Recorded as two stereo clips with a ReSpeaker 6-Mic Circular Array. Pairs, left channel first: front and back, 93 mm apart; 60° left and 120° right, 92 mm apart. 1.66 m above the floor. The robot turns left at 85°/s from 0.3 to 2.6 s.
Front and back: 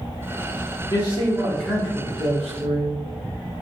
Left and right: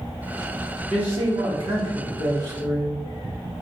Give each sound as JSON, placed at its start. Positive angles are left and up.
{"t": 0.9, "sound": "a man speaking", "azimuth_deg": -40, "distance_m": 1.3}